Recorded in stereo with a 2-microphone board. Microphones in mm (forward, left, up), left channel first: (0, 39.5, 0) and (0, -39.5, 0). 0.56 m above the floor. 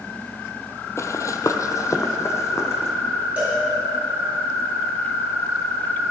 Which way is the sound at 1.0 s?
35° left (ahead or behind).